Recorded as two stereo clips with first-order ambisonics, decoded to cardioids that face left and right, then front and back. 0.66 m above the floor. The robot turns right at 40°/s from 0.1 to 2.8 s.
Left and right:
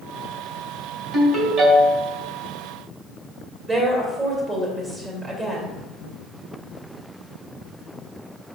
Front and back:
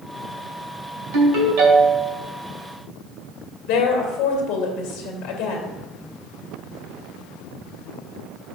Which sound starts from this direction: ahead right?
A woman speaking, at 3.7 s.